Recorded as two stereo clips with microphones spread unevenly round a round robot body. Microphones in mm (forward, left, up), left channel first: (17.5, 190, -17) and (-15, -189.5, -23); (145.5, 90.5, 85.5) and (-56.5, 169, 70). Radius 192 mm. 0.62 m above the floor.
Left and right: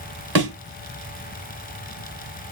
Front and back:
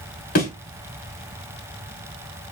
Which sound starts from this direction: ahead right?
A thud, at 0.3 s.